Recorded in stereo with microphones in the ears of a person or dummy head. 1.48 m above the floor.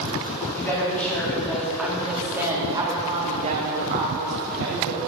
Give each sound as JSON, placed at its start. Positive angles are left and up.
{"t": 0.5, "sound": "a woman speaking", "side_deg": 15, "distance_m": 3.5}